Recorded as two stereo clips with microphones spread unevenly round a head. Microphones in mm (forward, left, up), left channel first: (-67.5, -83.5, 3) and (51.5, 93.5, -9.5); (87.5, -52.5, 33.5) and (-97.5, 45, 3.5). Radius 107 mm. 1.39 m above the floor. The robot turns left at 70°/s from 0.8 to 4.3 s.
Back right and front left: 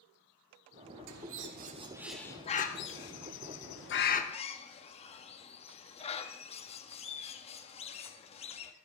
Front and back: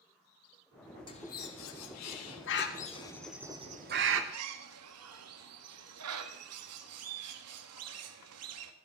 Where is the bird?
40° left, 1.6 m; by 8.7 s 175° left, 1.6 m.